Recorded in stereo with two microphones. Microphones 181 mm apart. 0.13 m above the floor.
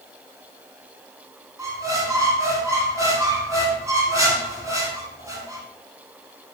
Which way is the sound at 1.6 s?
20° right (ahead or behind).